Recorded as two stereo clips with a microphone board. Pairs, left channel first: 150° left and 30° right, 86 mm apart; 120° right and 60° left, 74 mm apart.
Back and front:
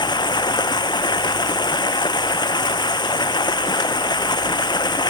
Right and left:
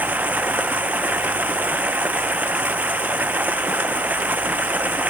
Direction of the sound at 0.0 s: 125° left.